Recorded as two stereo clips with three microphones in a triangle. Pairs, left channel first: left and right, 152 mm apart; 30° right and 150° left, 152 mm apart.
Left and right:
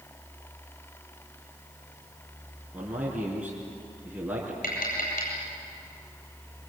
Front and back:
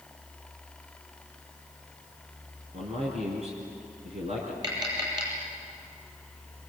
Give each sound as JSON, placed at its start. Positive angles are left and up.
{"t": 2.7, "sound": "a man speaking", "azimuth_deg": -170, "distance_m": 4.5}
{"t": 4.6, "sound": "tapping", "azimuth_deg": 90, "distance_m": 9.0}